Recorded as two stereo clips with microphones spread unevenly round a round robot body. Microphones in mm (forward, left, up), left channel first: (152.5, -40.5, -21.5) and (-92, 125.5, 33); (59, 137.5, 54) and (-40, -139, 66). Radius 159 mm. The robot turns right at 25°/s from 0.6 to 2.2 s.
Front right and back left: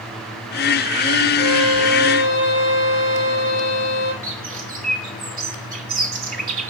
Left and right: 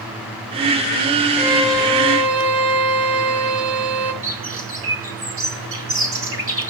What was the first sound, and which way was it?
A violin, 130° right.